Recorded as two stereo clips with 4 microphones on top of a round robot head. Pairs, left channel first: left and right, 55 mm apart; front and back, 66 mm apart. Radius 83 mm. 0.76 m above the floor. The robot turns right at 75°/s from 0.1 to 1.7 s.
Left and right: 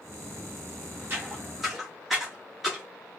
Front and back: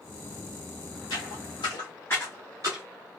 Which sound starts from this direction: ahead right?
Footsteps, at 1.1 s.